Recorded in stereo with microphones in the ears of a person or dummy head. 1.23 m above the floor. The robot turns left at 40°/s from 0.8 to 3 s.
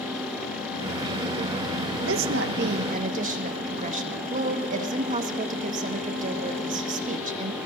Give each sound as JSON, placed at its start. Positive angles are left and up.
{"t": 2.0, "sound": "a woman speaking", "azimuth_deg": -110, "distance_m": 1.3}